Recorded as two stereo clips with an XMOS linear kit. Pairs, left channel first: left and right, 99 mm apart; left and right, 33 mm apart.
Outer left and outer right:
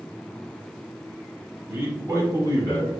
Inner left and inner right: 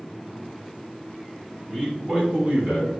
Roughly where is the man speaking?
Centre.